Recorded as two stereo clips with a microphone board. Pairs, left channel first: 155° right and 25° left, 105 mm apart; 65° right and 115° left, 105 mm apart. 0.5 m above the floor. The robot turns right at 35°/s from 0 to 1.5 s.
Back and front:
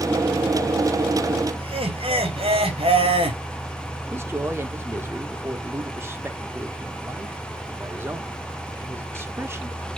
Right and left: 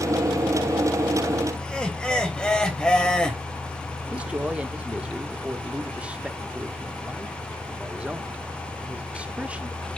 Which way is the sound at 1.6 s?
15° left.